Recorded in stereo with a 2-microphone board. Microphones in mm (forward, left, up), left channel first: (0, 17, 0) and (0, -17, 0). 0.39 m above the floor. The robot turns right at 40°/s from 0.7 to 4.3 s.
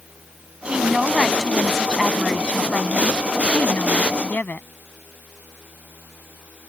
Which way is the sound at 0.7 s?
35° right.